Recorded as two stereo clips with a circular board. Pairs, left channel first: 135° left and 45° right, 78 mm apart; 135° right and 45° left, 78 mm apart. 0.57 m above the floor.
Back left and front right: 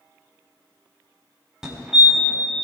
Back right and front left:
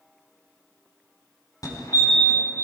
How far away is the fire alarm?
About 3.5 m.